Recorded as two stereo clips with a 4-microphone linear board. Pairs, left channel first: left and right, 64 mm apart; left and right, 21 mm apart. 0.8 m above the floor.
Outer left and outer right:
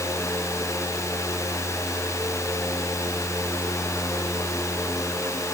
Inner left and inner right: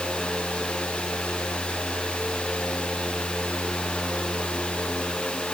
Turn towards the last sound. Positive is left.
No sound to turn to.